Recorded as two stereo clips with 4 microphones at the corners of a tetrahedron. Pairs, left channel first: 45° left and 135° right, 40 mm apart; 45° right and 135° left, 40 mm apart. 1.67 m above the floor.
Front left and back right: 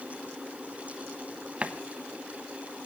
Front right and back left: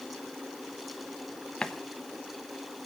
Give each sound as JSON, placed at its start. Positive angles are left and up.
{"t": 1.6, "sound": "a running tap", "azimuth_deg": -100, "distance_m": 0.9}